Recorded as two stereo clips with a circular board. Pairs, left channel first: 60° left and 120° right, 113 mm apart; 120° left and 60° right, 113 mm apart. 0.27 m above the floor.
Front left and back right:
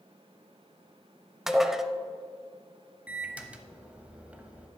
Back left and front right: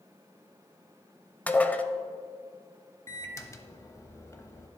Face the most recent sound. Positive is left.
turn(degrees=170)